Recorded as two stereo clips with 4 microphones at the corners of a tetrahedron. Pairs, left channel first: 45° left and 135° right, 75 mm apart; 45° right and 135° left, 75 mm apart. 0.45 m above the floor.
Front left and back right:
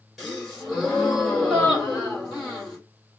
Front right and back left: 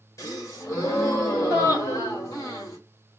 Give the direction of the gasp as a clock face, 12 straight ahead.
2 o'clock.